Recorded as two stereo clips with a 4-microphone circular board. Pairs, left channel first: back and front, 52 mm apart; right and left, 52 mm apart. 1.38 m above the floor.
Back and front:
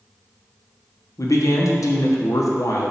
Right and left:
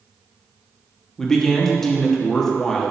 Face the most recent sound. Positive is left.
turn(degrees=-170)